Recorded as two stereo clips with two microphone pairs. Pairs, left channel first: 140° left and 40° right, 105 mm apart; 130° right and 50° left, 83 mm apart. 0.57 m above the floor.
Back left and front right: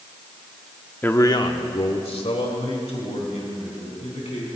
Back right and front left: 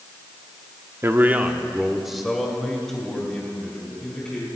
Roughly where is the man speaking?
Left.